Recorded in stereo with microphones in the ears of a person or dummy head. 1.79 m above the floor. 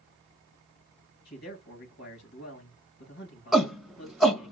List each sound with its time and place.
1.2 s a man speaking: 55° left (ahead or behind), 3 m
3.5 s a shout: centre (ahead or behind), 1.4 m